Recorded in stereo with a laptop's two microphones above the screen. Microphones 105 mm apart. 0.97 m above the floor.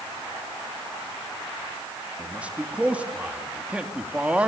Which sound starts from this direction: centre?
A man speaking, at 2.2 s.